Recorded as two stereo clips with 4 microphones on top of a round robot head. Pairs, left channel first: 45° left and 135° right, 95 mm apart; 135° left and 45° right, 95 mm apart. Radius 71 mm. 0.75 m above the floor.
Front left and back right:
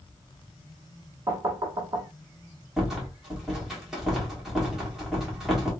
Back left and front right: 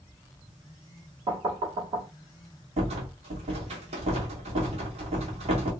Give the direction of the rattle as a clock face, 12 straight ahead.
2 o'clock.